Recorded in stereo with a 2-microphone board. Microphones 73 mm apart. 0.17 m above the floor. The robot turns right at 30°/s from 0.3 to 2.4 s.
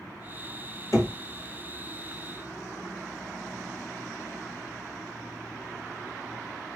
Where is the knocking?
45° left (ahead or behind), 1.6 m.